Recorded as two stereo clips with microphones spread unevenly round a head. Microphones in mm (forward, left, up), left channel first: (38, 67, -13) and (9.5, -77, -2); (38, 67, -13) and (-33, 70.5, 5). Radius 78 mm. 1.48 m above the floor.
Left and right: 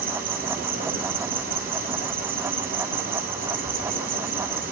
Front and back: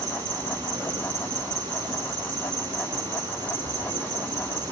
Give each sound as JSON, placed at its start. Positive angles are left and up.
{"t": 0.0, "sound": "an insect", "azimuth_deg": -125, "distance_m": 3.5}